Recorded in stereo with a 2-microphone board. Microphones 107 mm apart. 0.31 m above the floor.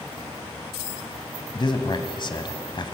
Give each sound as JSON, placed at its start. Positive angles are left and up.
{"t": 1.6, "sound": "a man speaking", "side_deg": 45, "distance_m": 1.7}